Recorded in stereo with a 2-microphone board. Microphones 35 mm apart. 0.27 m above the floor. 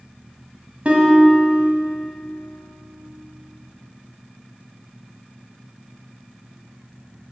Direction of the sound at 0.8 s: 40° right (ahead or behind).